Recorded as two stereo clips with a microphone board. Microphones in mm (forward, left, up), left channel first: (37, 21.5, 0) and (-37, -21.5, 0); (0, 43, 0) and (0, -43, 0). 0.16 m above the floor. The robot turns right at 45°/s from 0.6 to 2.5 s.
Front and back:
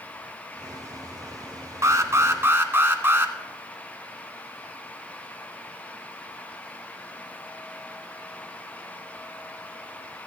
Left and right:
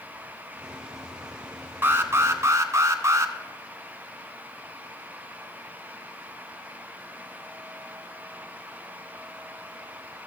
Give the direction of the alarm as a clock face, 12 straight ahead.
5 o'clock.